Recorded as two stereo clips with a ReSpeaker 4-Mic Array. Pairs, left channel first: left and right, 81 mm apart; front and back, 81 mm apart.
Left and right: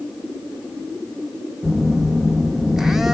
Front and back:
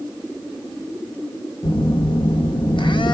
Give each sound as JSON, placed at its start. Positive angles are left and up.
{"t": 1.6, "sound": "a phone buzzing", "azimuth_deg": -5, "distance_m": 0.6}